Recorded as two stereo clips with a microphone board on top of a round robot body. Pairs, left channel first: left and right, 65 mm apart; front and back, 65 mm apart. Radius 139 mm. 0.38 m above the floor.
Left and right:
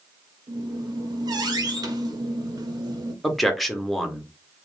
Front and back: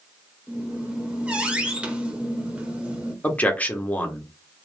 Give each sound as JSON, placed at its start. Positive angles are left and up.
{"t": 0.5, "sound": "a squeak", "azimuth_deg": -105, "distance_m": 0.9}
{"t": 3.2, "sound": "a man speaking", "azimuth_deg": 5, "distance_m": 0.9}